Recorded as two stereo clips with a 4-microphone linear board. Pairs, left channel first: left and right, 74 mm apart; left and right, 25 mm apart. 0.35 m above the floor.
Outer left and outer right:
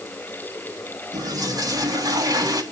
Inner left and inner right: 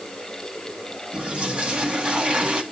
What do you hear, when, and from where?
1.1 s a toilet flushing: 60° right (ahead or behind), 2.5 m